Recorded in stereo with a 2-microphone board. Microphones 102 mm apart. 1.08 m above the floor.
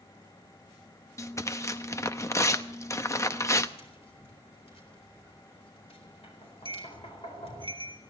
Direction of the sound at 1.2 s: 30° left (ahead or behind).